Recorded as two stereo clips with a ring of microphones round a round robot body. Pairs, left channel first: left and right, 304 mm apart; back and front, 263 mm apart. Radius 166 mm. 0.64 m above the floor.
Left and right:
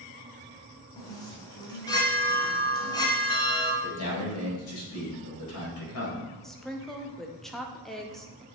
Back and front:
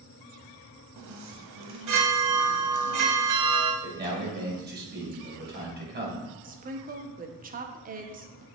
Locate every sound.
1.0 s a chime: 15° left, 1.1 m
3.8 s a man speaking: 50° left, 2.5 m
6.4 s a woman speaking: 5° left, 0.8 m